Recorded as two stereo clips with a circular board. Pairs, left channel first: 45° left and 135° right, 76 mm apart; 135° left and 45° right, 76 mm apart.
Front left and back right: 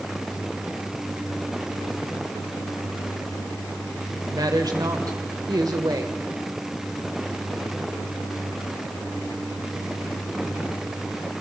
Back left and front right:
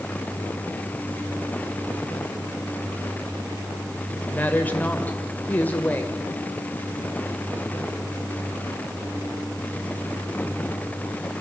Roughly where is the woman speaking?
Behind.